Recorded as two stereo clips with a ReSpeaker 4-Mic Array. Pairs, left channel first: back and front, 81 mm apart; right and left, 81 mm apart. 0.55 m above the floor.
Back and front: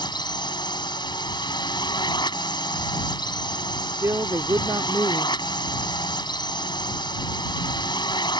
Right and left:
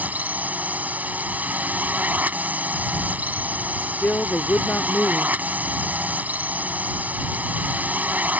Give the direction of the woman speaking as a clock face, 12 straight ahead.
1 o'clock.